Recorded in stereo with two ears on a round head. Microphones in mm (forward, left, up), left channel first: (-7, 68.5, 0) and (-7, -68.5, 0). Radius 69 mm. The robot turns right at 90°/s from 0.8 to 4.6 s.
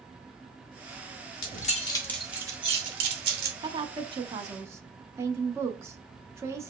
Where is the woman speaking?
120° right, 0.8 m; by 6.7 s 35° right, 0.8 m.